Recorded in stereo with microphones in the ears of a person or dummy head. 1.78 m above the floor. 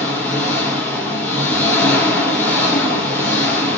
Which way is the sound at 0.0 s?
15° left (ahead or behind).